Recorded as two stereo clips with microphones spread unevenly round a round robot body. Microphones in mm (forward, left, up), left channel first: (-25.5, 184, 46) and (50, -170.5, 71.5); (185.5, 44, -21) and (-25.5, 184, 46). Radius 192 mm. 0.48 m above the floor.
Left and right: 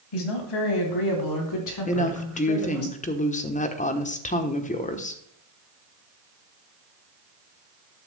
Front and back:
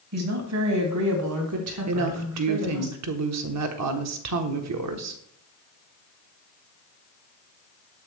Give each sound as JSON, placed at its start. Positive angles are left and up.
{"t": 0.1, "sound": "a woman speaking", "azimuth_deg": 115, "distance_m": 3.0}
{"t": 1.9, "sound": "a woman speaking", "azimuth_deg": 165, "distance_m": 1.2}